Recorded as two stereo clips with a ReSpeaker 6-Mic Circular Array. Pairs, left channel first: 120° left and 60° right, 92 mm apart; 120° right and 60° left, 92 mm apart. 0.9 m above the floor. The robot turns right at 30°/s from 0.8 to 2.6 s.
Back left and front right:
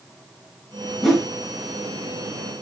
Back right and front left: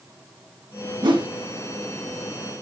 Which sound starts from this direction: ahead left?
A whoosh, at 1.0 s.